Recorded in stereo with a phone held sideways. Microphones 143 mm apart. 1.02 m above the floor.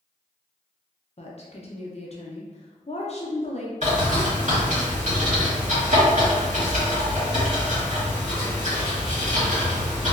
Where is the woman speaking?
45° left (ahead or behind), 0.5 m.